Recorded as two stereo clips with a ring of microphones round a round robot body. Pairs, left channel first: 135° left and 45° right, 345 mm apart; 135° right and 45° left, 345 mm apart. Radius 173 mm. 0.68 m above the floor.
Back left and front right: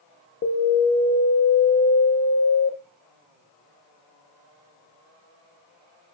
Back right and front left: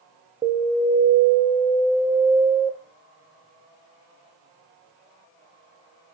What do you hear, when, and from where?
0.4 s an alarm: 115° left, 0.5 m